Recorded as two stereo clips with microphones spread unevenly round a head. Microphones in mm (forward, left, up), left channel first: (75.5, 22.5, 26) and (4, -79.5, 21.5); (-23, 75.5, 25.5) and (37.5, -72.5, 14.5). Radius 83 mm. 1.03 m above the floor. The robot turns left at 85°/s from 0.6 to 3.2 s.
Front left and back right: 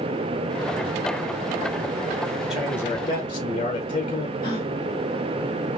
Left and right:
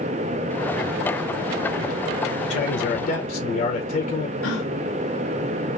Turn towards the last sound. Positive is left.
turn(degrees=120)